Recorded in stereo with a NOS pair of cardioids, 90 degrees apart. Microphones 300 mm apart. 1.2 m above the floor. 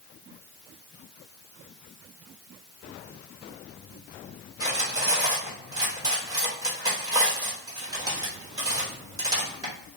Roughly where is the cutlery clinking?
Ahead.